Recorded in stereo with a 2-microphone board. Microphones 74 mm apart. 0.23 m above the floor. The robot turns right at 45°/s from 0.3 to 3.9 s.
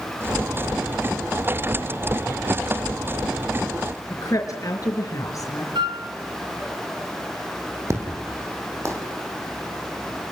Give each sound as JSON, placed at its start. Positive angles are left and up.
{"t": 4.1, "sound": "a woman speaking", "side_deg": 45, "distance_m": 4.5}
{"t": 5.8, "sound": "a flute", "side_deg": -85, "distance_m": 2.0}
{"t": 7.9, "sound": "an explosion", "side_deg": -40, "distance_m": 5.5}